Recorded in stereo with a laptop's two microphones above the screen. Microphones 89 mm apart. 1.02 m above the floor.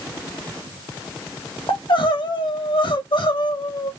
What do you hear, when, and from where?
1.7 s crying: 70° left (ahead or behind), 1.2 m